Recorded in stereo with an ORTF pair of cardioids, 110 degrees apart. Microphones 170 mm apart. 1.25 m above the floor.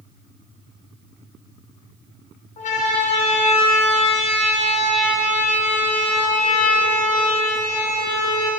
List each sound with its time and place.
2.6 s a siren: 45° left, 9 m; by 8.5 s 40° left, 12 m